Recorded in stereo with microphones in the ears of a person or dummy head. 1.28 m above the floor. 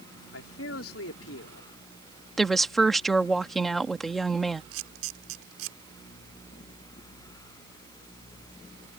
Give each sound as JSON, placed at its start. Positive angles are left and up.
{"t": 0.3, "sound": "a man speaking", "side_deg": 90}
{"t": 2.4, "sound": "a woman speaking", "side_deg": 5}
{"t": 4.7, "sound": "a camera shutter", "side_deg": -80}